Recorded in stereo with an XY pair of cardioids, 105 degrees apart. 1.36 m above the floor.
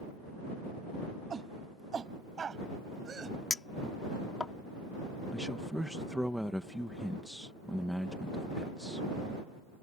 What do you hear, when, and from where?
1.3 s a shout: 45° right; by 3.4 s 35° right
3.5 s a clink: 25° left
5.3 s a man speaking: straight ahead